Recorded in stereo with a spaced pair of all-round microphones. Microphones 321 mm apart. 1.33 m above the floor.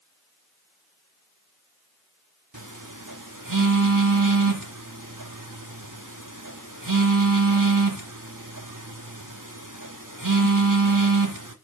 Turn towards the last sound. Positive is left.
turn(degrees=-75)  # may be behind; listen again after turning